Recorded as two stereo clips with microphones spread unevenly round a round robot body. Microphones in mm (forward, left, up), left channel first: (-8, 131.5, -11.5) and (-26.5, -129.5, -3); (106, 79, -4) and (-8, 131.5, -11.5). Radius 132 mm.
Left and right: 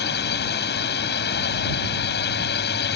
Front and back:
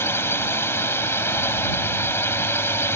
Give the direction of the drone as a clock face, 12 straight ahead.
11 o'clock.